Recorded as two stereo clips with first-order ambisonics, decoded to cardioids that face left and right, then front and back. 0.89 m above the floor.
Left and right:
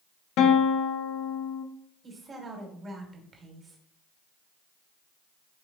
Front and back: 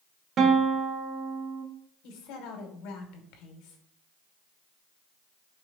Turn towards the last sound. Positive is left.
turn(degrees=-20)